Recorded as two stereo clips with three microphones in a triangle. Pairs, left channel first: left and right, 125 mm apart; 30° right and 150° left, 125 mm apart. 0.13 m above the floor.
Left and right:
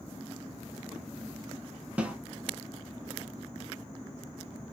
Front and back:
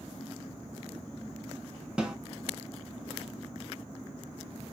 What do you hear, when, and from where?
2.0 s a snare drum: 145° right, 0.5 m